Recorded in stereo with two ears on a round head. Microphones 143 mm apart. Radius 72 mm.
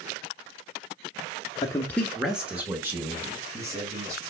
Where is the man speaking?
25° left (ahead or behind), 0.8 m; by 4.2 s 20° right (ahead or behind), 3.5 m.